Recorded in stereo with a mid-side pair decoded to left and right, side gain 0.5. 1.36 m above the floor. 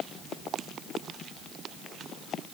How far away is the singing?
I don't hear singing.